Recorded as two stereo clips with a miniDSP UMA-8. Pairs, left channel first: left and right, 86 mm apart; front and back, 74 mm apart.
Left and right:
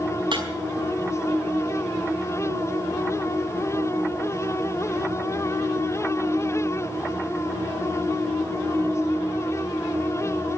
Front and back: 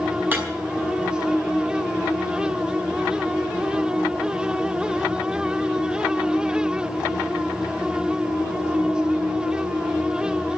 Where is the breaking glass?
115° right, 5 m.